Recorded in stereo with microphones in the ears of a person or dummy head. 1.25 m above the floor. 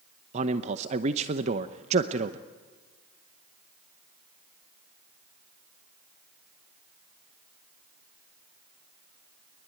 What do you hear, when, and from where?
0.3 s a man speaking: 40° right (ahead or behind), 0.8 m